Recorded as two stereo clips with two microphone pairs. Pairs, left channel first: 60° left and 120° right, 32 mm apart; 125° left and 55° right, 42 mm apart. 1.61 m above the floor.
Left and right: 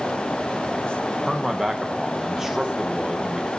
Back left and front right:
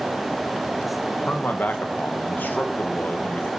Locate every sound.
1.3 s a man speaking: 160° left, 1.8 m